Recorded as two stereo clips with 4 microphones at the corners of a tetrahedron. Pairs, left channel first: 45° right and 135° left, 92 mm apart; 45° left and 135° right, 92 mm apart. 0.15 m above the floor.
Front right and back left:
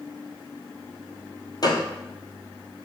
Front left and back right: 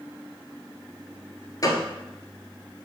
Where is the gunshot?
5° right, 1.1 m.